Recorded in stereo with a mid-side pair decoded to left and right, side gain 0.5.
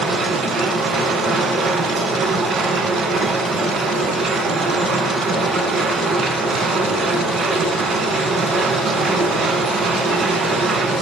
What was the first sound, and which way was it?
A machine running, 60° right.